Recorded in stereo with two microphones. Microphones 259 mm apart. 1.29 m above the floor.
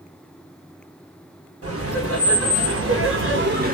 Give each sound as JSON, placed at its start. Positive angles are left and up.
{"t": 1.6, "sound": "laughter", "side_deg": -55, "distance_m": 1.3}